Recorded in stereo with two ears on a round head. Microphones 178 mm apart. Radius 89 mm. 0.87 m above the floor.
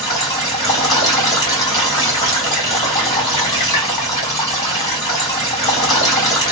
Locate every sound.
0.0 s running water: 20° left (ahead or behind), 1.1 m